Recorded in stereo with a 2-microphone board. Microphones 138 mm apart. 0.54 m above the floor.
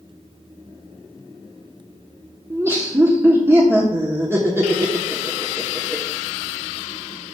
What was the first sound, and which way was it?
Laughter, 20° right (ahead or behind).